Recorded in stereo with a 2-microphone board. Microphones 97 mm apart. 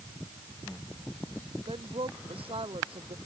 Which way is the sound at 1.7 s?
80° right.